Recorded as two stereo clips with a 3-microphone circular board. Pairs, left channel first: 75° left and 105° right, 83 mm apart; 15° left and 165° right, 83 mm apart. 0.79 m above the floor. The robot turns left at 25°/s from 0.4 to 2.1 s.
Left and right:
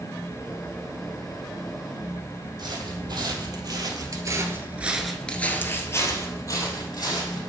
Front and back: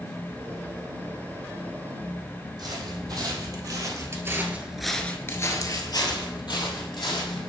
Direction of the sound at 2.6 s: 135° right.